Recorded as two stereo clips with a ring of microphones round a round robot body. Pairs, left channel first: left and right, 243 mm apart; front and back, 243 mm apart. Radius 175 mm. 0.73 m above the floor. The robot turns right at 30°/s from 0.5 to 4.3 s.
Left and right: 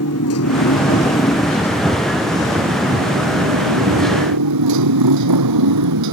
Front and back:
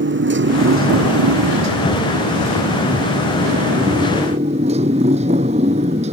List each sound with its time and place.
0.0 s a motorcycle: 140° left; by 6.1 s 105° right